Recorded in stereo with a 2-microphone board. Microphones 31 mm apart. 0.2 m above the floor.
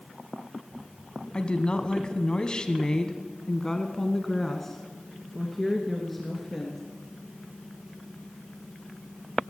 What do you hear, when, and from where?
1.3 s a woman speaking: 35° left (ahead or behind), 1.2 m; by 6.8 s 5° left (ahead or behind), 2.5 m